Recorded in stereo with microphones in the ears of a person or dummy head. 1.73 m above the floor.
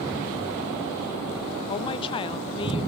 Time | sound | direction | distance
1.7 | a woman speaking | 30° left (ahead or behind) | 0.9 m